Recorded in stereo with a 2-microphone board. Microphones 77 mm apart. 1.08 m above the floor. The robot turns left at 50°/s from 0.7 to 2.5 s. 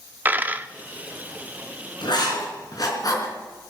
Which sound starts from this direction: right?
A dropped coin, at 0.2 s.